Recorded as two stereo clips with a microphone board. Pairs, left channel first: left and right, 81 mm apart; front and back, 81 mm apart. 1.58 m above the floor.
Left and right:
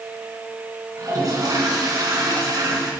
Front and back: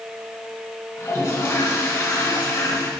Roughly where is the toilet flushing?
Ahead right.